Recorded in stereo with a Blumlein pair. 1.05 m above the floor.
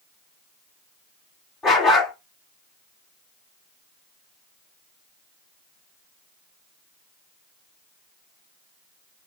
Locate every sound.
1.6 s a dog barking: 25° left, 2.5 m